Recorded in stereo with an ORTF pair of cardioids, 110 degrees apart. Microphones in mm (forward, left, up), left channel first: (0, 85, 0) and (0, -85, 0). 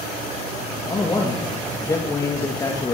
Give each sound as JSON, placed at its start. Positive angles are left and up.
{"t": 0.9, "sound": "a man speaking", "azimuth_deg": 20, "distance_m": 2.5}